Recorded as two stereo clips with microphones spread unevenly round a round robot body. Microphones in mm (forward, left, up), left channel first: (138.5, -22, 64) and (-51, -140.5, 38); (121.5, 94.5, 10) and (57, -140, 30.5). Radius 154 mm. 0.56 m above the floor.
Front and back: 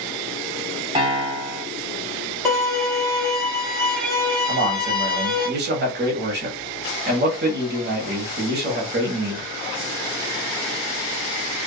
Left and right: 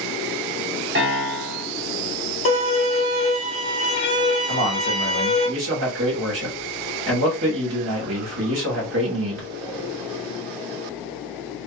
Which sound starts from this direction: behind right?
A man speaking, at 4.5 s.